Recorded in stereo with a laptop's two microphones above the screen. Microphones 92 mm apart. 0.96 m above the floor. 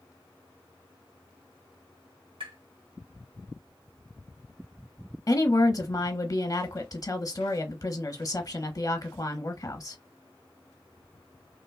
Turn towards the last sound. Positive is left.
turn(degrees=40)  # may be behind; listen again after turning